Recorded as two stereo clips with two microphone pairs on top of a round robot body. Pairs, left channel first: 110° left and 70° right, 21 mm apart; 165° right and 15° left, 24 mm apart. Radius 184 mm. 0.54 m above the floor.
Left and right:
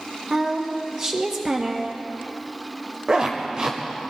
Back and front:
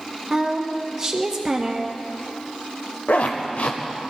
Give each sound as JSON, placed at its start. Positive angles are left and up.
{"t": 0.3, "sound": "a woman speaking", "azimuth_deg": -35, "distance_m": 1.4}
{"t": 3.1, "sound": "a zipper", "azimuth_deg": -135, "distance_m": 0.9}